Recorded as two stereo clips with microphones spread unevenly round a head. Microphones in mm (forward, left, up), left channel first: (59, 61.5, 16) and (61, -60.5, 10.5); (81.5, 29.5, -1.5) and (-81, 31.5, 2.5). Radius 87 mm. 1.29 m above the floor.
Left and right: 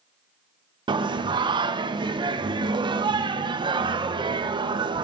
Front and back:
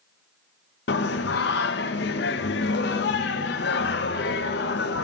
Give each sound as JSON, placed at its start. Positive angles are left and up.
{"t": 0.9, "sound": "singing", "azimuth_deg": -35, "distance_m": 0.6}